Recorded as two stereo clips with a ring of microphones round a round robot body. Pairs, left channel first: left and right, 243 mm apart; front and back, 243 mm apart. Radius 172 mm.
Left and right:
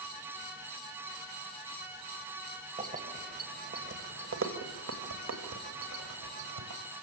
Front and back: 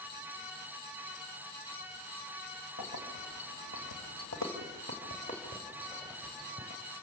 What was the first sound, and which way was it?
Keys jangling, 30° right.